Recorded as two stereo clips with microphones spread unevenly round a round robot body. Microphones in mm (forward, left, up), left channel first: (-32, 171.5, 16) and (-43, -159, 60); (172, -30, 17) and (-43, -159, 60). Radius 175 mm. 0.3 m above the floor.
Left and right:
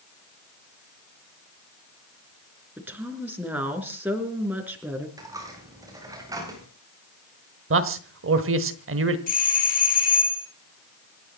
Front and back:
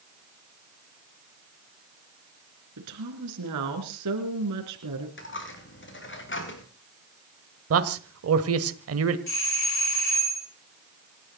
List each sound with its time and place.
2.8 s a woman speaking: straight behind, 4 m
5.2 s a dropped coin: 10° right, 5 m
7.7 s a man speaking: 140° right, 1.6 m
9.3 s a doorbell: 30° left, 4 m